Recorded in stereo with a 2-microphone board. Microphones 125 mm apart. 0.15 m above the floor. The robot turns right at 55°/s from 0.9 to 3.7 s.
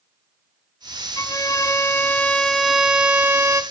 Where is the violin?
95° left, 0.7 m; by 3.6 s 130° right, 0.7 m.